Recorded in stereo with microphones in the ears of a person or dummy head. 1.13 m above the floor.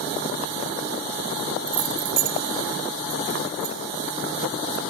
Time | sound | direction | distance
1.7 | keys jangling | 75° right (ahead or behind) | 1.0 m